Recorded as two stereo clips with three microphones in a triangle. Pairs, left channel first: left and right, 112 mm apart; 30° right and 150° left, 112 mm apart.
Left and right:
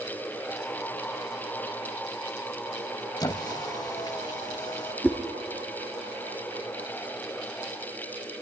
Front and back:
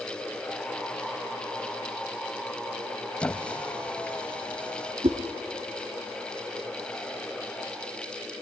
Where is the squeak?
45° left, 0.8 m.